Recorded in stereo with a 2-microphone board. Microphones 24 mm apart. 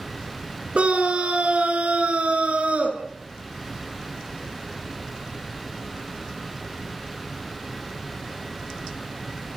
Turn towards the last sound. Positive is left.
turn(degrees=-70)  # may be behind; listen again after turning